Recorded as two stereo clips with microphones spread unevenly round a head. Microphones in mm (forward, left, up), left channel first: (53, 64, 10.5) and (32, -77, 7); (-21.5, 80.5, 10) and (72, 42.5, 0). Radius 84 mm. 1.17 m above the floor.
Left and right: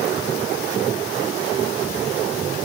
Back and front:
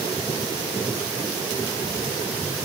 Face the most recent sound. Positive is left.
No sound to turn to.